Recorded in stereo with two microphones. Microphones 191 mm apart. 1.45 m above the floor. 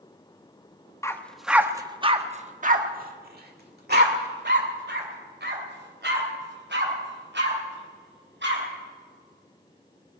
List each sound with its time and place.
1.0 s a dog barking: 15° left (ahead or behind), 0.9 m; by 8.6 s 75° right (ahead or behind), 5 m